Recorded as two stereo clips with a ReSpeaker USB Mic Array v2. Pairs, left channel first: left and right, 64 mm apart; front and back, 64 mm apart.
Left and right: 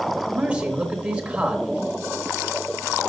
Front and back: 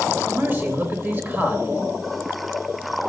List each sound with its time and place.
0.3 s a man speaking: 150° right, 1.1 m